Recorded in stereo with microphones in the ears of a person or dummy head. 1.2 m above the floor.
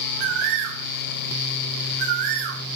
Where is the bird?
60° right (ahead or behind), 2.5 m.